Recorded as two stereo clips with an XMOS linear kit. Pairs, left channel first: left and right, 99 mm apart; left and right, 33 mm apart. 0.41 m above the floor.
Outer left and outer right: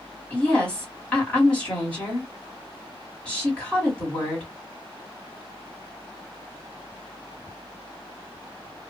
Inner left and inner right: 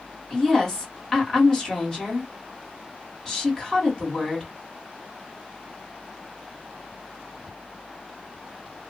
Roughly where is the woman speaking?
Centre.